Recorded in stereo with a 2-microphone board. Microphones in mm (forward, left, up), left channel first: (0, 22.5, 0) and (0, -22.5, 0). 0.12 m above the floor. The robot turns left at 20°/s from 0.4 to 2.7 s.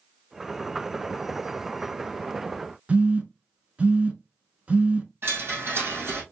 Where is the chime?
55° right (ahead or behind), 3 m.